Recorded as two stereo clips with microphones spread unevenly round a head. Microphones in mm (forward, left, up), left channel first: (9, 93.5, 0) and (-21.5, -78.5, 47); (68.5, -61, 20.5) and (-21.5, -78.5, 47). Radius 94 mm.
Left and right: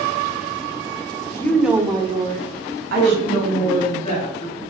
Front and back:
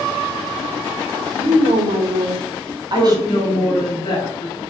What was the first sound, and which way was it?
A woman speaking, 150° left.